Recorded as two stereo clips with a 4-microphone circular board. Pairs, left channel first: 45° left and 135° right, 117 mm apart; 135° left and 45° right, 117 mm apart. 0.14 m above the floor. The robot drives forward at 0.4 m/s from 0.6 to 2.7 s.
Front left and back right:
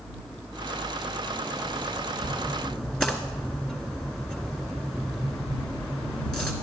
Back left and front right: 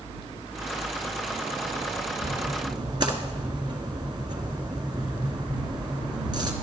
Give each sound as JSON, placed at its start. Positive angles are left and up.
{"t": 2.2, "sound": "a splash", "azimuth_deg": -35, "distance_m": 1.6}